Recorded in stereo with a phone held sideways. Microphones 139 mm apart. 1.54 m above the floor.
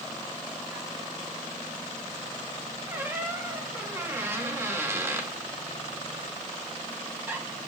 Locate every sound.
2.9 s a squeak: 20° right (ahead or behind), 1.1 m